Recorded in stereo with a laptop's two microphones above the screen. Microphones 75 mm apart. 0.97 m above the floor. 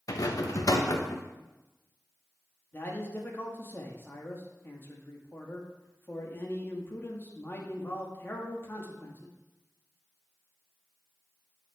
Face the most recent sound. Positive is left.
turn(degrees=30)  # may be behind; listen again after turning